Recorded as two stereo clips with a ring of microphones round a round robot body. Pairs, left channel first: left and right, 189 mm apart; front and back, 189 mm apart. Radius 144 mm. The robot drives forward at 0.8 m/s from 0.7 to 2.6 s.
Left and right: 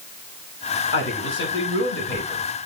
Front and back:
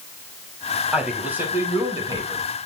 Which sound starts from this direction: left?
A man speaking, at 0.9 s.